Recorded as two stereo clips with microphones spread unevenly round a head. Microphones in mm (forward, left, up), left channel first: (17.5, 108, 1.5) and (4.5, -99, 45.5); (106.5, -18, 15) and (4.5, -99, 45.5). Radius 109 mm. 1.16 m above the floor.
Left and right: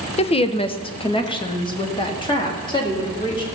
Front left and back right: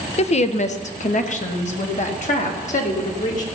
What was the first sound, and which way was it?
A woman speaking, 35° left.